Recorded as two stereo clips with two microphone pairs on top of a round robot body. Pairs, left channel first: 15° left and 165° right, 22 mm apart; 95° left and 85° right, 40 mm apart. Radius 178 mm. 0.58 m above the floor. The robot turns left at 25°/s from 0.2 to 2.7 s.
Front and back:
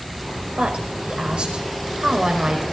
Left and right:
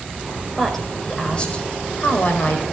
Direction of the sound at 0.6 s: Straight behind.